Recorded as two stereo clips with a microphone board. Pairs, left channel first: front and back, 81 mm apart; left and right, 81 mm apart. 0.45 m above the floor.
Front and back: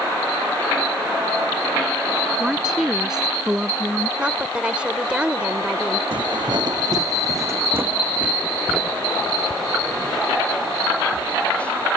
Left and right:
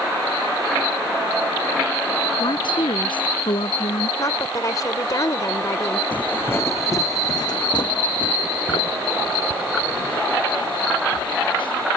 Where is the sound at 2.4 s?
95° left.